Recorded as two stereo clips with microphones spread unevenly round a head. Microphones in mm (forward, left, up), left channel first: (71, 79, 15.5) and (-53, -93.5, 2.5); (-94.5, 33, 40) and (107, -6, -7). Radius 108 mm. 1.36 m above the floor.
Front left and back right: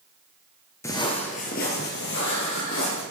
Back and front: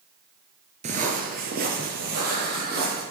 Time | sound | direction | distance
0.8 | footsteps | 20° left | 1.4 m